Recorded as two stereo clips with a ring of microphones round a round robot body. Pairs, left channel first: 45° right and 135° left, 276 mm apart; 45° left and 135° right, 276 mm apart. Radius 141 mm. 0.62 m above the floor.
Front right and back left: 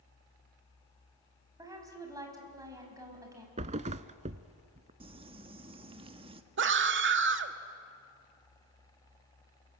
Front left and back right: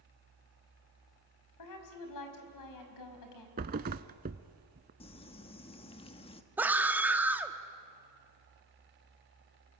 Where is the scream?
145° left, 1.5 m.